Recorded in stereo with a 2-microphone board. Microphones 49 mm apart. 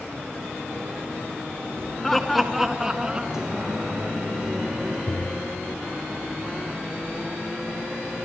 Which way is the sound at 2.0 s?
5° left (ahead or behind).